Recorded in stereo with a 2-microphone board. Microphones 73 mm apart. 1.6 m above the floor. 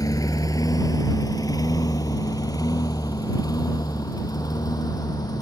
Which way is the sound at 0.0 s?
60° left (ahead or behind).